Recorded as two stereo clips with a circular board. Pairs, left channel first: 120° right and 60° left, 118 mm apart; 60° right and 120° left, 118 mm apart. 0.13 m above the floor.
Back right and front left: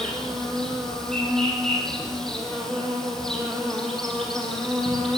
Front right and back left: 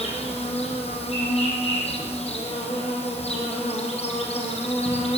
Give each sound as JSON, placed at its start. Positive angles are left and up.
{"t": 0.0, "sound": "an insect", "azimuth_deg": -35, "distance_m": 6.5}